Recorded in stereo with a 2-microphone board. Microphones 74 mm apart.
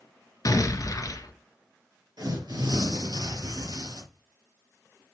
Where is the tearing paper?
65° right (ahead or behind), 4 m.